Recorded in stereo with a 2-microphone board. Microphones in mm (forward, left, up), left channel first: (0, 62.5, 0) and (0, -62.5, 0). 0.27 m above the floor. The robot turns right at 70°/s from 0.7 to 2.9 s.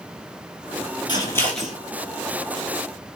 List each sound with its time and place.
1.1 s scissors: 40° left (ahead or behind), 1.2 m; by 1.8 s 10° right (ahead or behind), 1.2 m